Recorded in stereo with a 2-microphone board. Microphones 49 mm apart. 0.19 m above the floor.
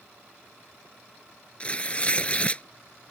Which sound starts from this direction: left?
Tearing paper, at 1.6 s.